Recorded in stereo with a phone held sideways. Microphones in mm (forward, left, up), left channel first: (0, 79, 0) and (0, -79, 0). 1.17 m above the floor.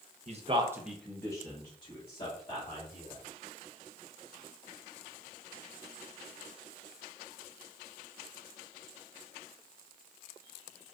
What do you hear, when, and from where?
0.3 s a man speaking: 45° right (ahead or behind), 0.7 m; by 3.2 s 35° left (ahead or behind), 2.5 m